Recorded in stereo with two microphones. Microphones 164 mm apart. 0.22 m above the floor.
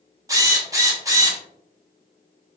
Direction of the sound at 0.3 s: 20° right (ahead or behind).